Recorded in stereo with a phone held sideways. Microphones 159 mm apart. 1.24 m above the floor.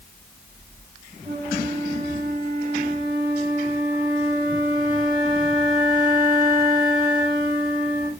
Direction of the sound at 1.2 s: 20° right (ahead or behind).